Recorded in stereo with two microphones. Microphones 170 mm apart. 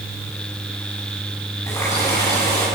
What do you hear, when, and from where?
1.7 s a running tap: 15° left (ahead or behind), 10 m